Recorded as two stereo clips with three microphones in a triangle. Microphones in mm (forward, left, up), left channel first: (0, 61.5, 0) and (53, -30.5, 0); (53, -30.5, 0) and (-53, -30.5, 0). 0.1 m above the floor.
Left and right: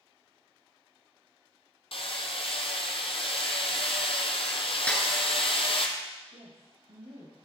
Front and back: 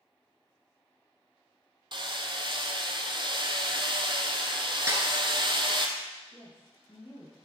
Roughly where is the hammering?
Behind left.